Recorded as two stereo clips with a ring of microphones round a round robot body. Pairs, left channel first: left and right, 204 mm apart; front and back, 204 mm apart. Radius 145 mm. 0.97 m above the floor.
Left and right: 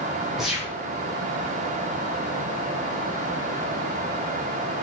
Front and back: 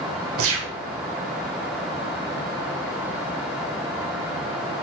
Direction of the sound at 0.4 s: Straight behind.